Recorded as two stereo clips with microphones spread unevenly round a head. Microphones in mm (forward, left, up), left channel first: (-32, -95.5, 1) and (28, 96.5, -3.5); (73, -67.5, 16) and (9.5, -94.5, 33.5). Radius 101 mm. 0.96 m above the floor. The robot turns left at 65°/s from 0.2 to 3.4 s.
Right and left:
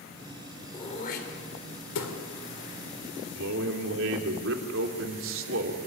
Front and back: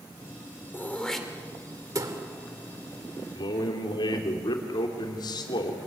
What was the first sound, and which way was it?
Throat clearing, 35° right.